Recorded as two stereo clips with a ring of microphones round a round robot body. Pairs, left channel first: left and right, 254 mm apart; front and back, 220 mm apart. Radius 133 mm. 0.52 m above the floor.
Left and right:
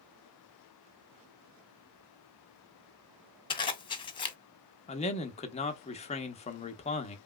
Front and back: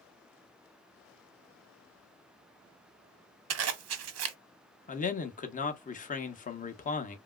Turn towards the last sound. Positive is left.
turn(degrees=35)